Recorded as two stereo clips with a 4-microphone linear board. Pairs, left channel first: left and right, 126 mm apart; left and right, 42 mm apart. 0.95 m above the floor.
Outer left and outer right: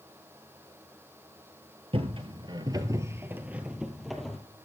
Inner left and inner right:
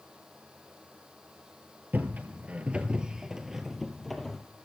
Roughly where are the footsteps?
Right.